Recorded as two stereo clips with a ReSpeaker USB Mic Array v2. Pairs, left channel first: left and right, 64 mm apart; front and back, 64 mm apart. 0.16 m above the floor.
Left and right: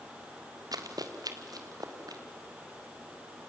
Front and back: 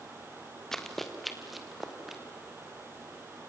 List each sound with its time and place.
0.7 s running footsteps: 85° right, 2 m; by 2.2 s 95° right, 4 m